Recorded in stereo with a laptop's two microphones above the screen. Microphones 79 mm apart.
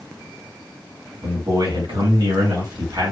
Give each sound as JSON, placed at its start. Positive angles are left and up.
{"t": 1.2, "sound": "a man speaking", "side_deg": -70, "distance_m": 2.5}